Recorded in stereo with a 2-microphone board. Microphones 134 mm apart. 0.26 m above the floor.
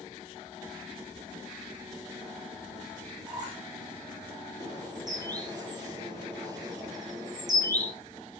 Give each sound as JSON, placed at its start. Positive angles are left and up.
{"t": 3.3, "sound": "a squeak", "side_deg": -30, "distance_m": 10.0}
{"t": 4.6, "sound": "a bird", "side_deg": -30, "distance_m": 7.0}